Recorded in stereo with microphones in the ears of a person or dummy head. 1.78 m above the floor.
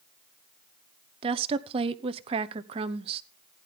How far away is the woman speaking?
About 0.9 m.